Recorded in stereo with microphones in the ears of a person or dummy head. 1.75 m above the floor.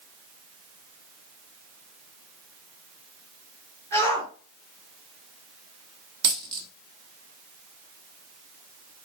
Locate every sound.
3.9 s a shout: 10° left (ahead or behind), 4.5 m
6.2 s a dropped coin: 25° right (ahead or behind), 1.5 m